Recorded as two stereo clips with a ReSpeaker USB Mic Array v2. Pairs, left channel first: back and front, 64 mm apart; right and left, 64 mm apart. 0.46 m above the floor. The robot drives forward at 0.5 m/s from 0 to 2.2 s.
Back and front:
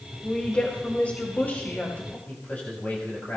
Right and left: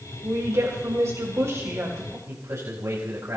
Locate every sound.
0.2 s a woman speaking: 110° left, 2.5 m; by 2.2 s 130° left, 3 m
2.3 s a man speaking: 120° left, 3 m